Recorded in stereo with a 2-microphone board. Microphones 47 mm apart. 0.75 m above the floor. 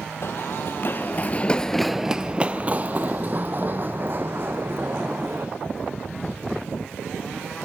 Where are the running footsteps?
55° left (ahead or behind), 1.4 m; by 5.5 s 50° right (ahead or behind), 3.5 m.